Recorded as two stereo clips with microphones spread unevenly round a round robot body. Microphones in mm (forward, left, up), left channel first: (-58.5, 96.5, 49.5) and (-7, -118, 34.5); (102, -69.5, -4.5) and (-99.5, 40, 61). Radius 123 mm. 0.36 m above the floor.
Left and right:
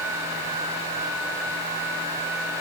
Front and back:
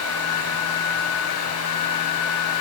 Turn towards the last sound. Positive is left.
No sound to turn to.